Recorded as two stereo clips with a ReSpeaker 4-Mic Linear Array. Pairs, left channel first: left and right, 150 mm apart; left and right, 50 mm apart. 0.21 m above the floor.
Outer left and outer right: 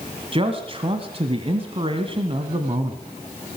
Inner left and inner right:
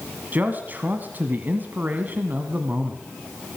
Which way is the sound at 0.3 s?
35° right (ahead or behind).